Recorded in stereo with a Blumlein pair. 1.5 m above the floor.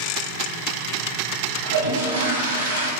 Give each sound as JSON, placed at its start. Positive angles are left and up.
{"t": 1.6, "sound": "a toilet flushing", "azimuth_deg": -70, "distance_m": 0.6}